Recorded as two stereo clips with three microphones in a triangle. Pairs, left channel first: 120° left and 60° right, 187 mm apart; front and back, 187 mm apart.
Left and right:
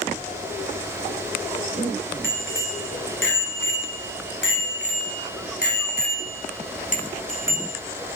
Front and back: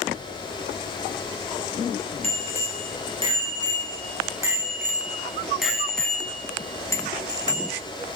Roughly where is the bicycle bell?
Behind left.